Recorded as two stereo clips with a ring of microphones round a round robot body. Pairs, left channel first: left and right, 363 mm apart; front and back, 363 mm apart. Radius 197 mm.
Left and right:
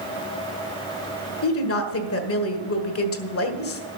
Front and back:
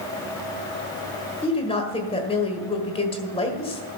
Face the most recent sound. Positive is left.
turn(degrees=65)